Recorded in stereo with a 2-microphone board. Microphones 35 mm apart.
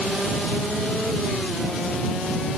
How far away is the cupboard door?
No cupboard door in this recording.